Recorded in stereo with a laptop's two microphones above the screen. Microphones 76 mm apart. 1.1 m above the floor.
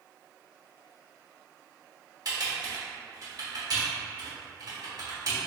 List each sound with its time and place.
2.2 s typing on a keyboard: 60° right (ahead or behind), 1.4 m